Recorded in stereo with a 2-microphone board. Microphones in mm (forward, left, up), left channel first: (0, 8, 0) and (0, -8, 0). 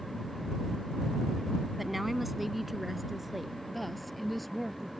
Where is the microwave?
I don't hear a microwave.